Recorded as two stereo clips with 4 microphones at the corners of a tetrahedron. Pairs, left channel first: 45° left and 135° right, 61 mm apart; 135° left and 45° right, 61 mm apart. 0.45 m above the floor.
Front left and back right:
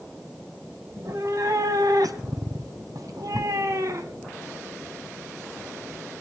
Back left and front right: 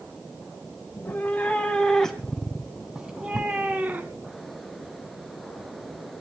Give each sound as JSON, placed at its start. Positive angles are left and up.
{"t": 0.9, "sound": "a cat meowing", "azimuth_deg": -165, "distance_m": 1.9}